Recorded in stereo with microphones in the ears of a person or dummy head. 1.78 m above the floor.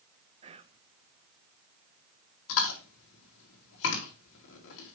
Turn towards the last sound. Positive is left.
turn(degrees=75)  # may be behind; listen again after turning